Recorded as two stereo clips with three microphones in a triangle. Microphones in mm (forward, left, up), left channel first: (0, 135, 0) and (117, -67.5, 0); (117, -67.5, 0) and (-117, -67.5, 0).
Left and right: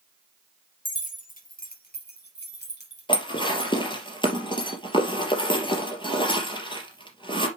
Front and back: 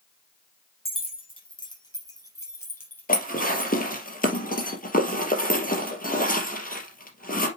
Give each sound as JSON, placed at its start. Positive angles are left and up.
{"t": 0.8, "sound": "keys jangling", "azimuth_deg": 65, "distance_m": 3.0}
{"t": 3.1, "sound": "dishes clattering", "azimuth_deg": 50, "distance_m": 2.5}